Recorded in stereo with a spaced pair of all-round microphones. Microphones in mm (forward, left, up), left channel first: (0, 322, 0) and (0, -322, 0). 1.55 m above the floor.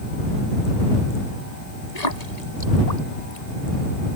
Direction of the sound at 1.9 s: 85° left.